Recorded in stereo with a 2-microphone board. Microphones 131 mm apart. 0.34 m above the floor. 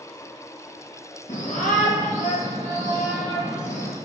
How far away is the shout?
About 4.5 m.